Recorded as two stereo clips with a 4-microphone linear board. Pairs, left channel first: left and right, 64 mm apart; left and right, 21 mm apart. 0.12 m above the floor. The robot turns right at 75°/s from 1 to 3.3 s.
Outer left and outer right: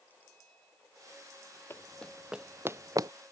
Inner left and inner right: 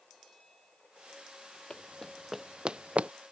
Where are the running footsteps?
40° left (ahead or behind); by 3.1 s 75° right (ahead or behind).